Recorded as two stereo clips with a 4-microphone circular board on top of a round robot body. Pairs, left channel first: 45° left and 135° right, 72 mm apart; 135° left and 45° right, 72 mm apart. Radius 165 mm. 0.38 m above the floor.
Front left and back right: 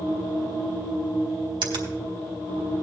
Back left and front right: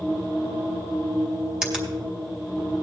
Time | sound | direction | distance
1.6 | a finger snap | 125° right | 2.5 m